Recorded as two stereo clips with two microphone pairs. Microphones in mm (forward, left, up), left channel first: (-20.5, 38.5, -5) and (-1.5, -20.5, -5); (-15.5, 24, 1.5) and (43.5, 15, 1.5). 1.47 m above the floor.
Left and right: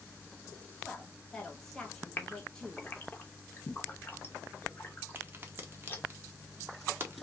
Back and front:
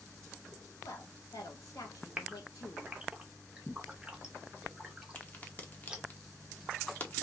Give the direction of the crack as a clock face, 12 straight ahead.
4 o'clock.